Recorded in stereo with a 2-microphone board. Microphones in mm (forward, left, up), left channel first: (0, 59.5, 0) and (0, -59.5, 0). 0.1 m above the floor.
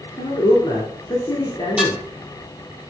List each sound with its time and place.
0.2 s a man speaking: 40° left (ahead or behind), 1.4 m
1.8 s dishes clattering: 5° right (ahead or behind), 1.6 m